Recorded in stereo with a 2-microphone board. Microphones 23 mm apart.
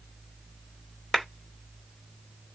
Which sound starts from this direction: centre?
A clap, at 1.1 s.